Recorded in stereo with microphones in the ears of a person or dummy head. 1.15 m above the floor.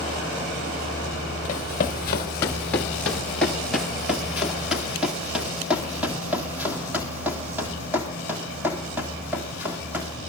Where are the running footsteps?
15° left (ahead or behind), 1.1 m; by 10.2 s 10° right (ahead or behind), 4.5 m.